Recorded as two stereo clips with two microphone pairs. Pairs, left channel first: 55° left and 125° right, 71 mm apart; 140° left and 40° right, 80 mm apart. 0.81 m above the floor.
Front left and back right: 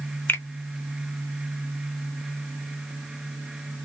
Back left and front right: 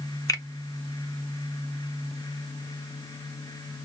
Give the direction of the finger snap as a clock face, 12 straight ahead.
8 o'clock.